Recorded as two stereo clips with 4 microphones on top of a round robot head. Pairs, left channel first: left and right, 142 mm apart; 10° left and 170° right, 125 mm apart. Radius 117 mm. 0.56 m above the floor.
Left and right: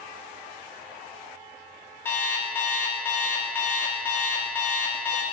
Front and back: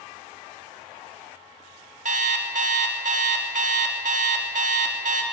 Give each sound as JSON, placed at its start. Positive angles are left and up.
{"t": 2.0, "sound": "an alarm clock", "azimuth_deg": 170, "distance_m": 0.7}